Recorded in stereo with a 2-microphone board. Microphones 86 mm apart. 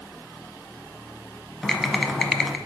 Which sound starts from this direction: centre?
Typing on a keyboard, at 1.6 s.